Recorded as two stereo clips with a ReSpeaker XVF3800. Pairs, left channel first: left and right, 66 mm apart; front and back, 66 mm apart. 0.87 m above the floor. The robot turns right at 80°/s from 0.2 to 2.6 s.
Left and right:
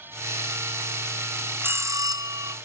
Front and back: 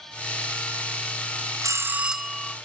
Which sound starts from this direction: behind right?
A bell, at 1.6 s.